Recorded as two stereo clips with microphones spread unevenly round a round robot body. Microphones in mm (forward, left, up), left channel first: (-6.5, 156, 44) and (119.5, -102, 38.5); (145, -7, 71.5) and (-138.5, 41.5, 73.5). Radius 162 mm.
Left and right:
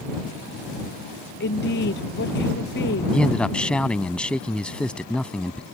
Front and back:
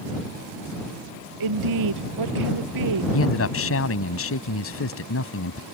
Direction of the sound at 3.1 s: 30° left.